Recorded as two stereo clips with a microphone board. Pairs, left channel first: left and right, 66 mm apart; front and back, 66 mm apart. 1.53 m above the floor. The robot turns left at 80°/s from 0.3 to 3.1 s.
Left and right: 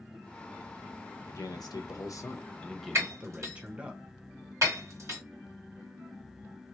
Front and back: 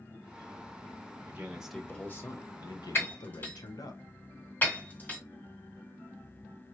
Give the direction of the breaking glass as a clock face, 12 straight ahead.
2 o'clock.